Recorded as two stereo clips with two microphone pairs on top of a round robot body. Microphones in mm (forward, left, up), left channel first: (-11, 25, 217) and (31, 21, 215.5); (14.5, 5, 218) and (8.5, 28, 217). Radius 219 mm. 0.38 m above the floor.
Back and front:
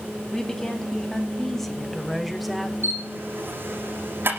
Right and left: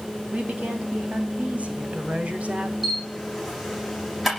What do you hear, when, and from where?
0.3 s a woman speaking: 100° left, 5 m; by 2.7 s 85° left, 3 m
2.8 s a camera shutter: 25° left, 9.5 m